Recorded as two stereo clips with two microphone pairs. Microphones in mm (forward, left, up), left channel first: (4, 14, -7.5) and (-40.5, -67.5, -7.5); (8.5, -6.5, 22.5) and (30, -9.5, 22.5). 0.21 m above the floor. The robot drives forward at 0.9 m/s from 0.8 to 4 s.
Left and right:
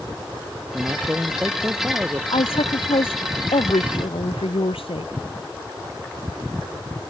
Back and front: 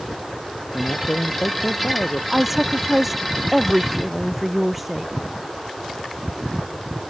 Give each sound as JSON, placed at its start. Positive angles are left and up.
{"t": 0.7, "sound": "a man speaking", "azimuth_deg": 170}
{"t": 2.3, "sound": "a woman speaking", "azimuth_deg": 70}